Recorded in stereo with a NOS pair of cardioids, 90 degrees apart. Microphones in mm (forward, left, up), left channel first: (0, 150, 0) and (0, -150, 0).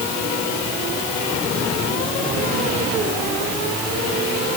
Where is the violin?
I don't hear a violin.